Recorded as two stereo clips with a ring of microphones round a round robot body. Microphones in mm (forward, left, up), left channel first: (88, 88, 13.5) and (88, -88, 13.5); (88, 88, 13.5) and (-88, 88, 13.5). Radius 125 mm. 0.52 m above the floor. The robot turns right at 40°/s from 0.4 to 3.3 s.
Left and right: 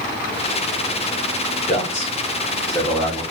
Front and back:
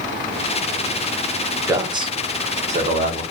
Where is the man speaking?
115° left, 0.9 m; by 3.2 s 175° left, 0.9 m.